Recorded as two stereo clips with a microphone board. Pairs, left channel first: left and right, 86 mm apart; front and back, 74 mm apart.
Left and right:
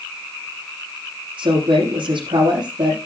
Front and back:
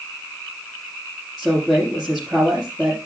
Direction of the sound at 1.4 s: 95° right.